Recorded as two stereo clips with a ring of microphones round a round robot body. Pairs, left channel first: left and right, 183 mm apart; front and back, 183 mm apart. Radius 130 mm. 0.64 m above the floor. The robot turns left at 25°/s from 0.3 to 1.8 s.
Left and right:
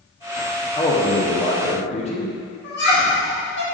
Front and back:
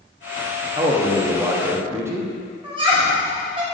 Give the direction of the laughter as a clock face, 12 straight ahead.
8 o'clock.